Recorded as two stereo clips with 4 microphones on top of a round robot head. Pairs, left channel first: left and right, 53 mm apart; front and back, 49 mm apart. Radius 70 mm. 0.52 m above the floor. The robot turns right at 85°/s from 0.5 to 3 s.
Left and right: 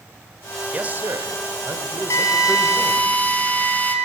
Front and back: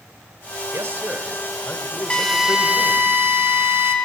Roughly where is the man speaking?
Behind right.